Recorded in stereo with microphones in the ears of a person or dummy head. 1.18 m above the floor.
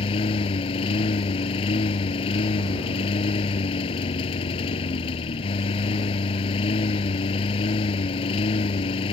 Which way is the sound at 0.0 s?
35° left (ahead or behind).